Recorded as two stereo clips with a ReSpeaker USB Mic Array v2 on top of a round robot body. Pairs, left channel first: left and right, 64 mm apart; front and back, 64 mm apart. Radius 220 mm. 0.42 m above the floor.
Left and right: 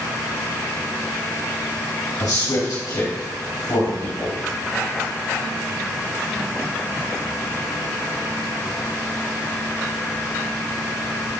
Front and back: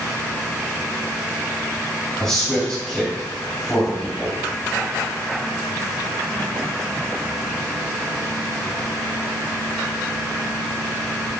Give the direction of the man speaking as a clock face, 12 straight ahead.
9 o'clock.